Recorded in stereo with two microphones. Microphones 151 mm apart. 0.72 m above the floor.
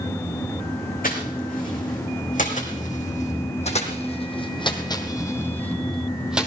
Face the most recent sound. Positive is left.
turn(degrees=-10)  # may be behind; listen again after turning